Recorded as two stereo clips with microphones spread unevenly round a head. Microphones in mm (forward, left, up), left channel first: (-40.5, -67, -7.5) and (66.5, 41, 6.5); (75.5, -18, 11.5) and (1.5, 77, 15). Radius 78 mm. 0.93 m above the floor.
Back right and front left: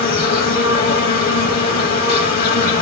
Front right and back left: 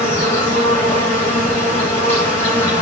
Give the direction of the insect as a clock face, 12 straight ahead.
4 o'clock.